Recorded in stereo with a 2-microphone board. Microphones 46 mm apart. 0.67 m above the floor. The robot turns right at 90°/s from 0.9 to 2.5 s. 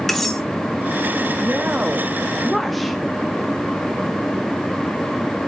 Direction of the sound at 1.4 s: 95° right.